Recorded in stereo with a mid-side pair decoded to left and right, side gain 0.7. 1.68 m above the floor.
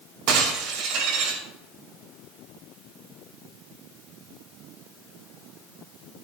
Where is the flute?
I don't hear a flute.